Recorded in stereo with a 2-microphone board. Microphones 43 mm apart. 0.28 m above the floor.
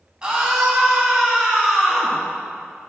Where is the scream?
20° right (ahead or behind), 2.5 m; by 2.2 s 5° right (ahead or behind), 4.5 m.